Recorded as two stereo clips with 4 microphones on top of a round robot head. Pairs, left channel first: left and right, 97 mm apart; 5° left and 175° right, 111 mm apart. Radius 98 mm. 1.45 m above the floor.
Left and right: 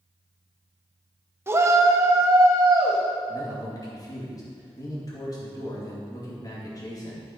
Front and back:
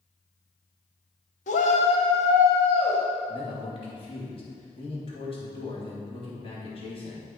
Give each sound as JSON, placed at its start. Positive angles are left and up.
{"t": 1.5, "sound": "a shout", "azimuth_deg": -25, "distance_m": 0.8}
{"t": 3.3, "sound": "a man speaking", "azimuth_deg": 40, "distance_m": 2.5}